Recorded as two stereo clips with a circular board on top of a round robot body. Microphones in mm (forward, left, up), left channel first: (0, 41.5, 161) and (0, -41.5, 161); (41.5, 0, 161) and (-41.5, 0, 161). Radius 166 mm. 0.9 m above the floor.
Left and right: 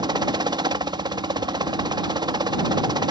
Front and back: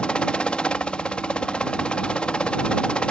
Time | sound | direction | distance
0.0 | a helicopter | 80° right | ?